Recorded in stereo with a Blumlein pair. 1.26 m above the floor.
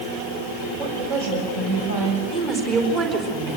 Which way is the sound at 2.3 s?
35° right.